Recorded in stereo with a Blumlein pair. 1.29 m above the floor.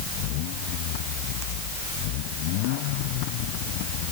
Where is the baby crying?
I don't hear a baby crying.